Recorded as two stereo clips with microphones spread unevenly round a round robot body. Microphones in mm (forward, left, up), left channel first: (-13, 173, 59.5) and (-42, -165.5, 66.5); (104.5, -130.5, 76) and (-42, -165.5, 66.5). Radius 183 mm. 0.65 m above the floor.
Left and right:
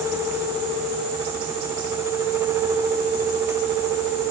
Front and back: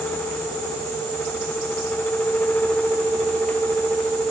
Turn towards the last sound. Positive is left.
No sound to turn to.